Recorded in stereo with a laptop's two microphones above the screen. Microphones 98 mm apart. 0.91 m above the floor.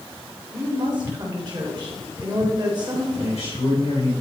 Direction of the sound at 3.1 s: 55° left (ahead or behind).